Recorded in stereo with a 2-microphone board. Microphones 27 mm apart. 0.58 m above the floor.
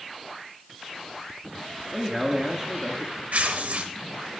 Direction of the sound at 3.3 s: 80° right.